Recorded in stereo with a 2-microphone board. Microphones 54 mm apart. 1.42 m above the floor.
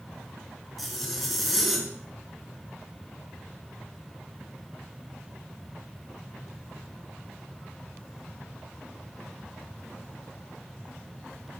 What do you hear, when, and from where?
0.8 s a zipper: centre (ahead or behind), 3.5 m